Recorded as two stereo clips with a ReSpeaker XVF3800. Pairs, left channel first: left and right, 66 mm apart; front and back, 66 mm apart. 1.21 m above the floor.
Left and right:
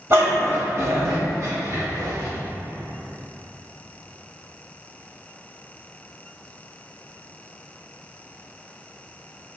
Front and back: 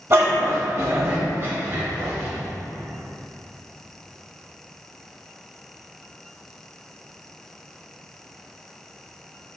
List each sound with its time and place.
0.1 s a dog barking: 135° right, 1.9 m; by 2.3 s 120° right, 3.5 m